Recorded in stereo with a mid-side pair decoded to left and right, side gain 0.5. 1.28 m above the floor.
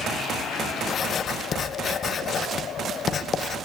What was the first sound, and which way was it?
Writing, 45° left.